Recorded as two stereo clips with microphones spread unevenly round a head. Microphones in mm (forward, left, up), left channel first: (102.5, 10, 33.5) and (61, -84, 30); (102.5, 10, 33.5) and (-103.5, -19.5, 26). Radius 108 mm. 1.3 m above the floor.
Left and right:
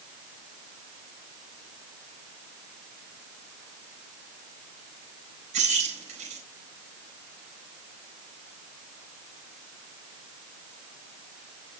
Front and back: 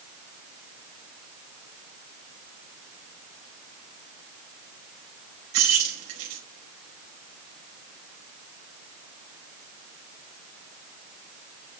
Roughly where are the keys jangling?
Behind right.